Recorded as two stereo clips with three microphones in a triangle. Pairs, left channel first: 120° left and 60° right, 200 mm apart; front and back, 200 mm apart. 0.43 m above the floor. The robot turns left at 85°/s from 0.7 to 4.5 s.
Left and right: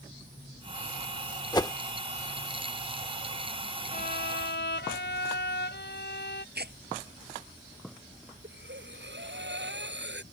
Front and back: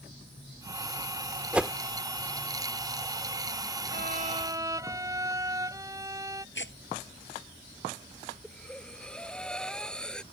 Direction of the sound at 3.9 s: 160° left.